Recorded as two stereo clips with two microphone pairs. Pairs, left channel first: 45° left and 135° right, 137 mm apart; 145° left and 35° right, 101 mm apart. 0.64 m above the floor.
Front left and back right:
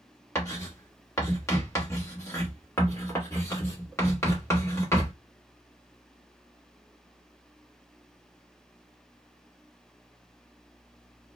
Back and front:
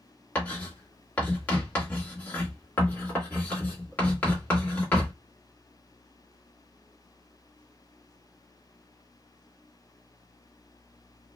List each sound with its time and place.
0.3 s writing: 90° left, 1.3 m